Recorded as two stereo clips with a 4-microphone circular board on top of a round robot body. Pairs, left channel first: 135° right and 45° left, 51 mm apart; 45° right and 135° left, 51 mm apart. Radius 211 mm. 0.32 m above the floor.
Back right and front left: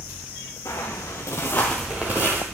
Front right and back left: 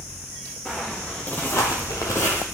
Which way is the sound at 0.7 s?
130° right.